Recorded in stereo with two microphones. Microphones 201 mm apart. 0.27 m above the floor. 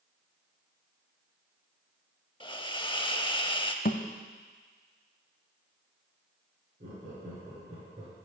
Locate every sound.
2.4 s a hiss: 25° left (ahead or behind), 0.5 m
3.9 s a thud: 45° left (ahead or behind), 0.6 m
6.8 s laughter: 45° right (ahead or behind), 4.5 m